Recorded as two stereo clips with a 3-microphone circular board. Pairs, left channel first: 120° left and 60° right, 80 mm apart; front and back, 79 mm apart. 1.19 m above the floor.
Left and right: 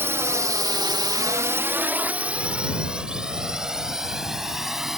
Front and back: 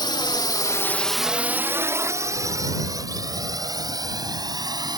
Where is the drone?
Straight ahead; by 5.0 s 145° right.